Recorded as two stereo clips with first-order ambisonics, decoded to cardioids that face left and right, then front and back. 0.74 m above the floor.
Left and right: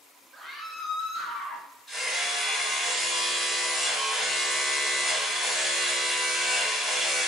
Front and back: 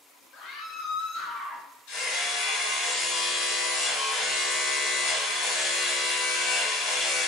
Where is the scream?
5° left, 0.9 m; by 1.7 s 50° left, 2 m.